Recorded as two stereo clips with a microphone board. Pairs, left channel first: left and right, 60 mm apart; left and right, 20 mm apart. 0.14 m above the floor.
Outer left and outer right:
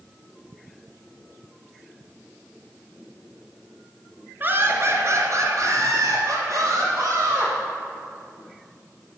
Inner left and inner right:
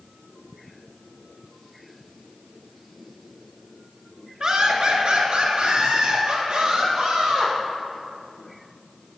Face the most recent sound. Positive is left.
turn(degrees=-50)  # may be behind; listen again after turning